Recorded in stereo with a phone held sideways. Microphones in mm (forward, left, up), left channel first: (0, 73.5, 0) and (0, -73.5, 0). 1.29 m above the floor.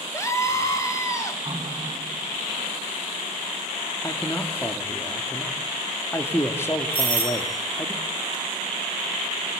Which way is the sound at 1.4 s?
30° right (ahead or behind).